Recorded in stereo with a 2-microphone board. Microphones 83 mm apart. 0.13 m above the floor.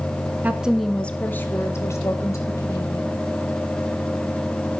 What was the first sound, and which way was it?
A woman speaking, 20° right (ahead or behind).